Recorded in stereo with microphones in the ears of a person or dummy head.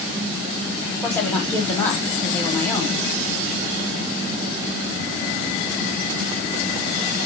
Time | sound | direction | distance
1.0 | a woman speaking | 10° left (ahead or behind) | 1.1 m